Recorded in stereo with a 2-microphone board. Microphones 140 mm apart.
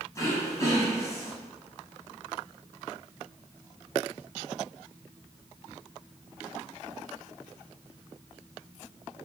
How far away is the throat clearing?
About 2 m.